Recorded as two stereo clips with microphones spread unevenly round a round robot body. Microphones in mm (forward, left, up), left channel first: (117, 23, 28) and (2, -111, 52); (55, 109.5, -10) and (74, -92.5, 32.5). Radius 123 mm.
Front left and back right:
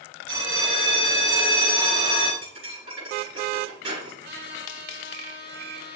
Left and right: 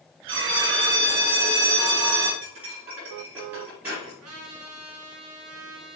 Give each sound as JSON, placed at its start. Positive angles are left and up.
{"t": 0.3, "sound": "a bell", "azimuth_deg": -155, "distance_m": 2.0}
{"t": 2.4, "sound": "cutlery clinking", "azimuth_deg": -170, "distance_m": 5.0}
{"t": 4.2, "sound": "a trumpet", "azimuth_deg": -120, "distance_m": 3.0}